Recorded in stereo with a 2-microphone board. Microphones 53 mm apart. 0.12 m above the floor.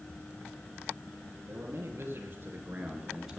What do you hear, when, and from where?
1.5 s a man speaking: 55° right (ahead or behind), 3 m; by 3.4 s 5° right (ahead or behind), 1.8 m